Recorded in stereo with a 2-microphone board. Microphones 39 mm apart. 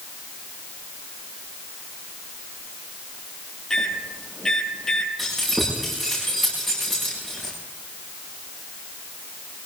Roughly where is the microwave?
Centre.